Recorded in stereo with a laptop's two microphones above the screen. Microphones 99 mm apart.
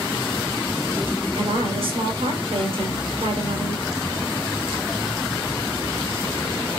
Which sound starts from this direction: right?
A woman speaking, at 1.4 s.